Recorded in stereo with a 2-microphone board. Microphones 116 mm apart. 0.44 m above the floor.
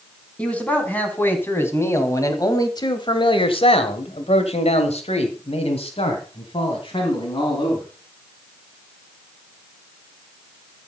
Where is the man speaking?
10° left (ahead or behind), 3.5 m; by 7.8 s 40° left (ahead or behind), 4 m.